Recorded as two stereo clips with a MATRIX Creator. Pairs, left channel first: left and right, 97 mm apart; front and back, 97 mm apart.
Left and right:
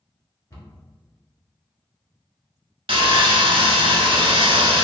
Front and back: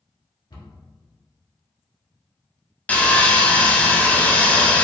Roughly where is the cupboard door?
Ahead left.